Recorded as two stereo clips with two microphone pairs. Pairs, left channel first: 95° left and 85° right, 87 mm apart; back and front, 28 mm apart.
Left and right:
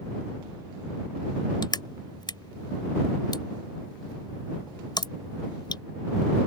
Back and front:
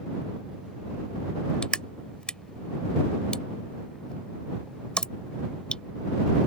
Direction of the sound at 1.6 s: 125° left.